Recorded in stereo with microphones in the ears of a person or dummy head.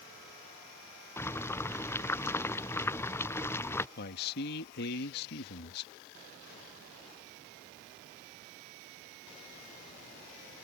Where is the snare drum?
No snare drum in this recording.